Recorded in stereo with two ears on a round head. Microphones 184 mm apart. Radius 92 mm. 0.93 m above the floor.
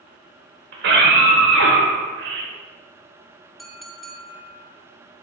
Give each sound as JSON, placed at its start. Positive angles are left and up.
{"t": 0.7, "sound": "a scream", "side_deg": -60, "distance_m": 3.5}
{"t": 3.6, "sound": "a clink", "side_deg": 0, "distance_m": 1.1}